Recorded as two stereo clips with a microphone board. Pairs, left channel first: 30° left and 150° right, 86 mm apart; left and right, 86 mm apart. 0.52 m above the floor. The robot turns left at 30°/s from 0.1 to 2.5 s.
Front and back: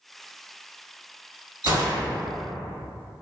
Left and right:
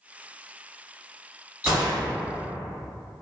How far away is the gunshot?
About 1.8 m.